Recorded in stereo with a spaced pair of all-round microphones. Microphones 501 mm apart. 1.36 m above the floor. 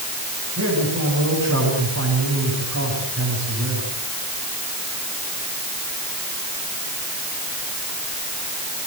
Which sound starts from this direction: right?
A man speaking, at 0.6 s.